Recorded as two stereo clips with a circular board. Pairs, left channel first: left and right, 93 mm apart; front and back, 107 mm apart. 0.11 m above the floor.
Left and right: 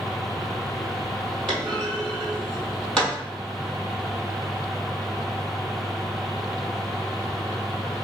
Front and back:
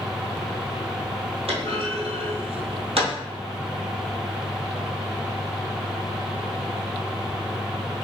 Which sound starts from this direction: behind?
A clunk, at 1.5 s.